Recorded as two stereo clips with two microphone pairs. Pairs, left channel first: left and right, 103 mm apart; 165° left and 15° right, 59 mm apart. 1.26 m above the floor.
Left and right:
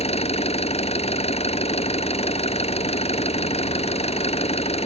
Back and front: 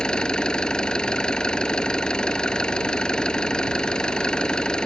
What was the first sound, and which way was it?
An engine running, 85° left.